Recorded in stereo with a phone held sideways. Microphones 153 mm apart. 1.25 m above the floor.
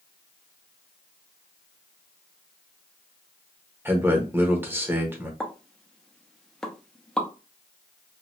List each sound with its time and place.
3.9 s a man speaking: 15° right (ahead or behind), 1.0 m
5.4 s a pop: 5° left (ahead or behind), 0.6 m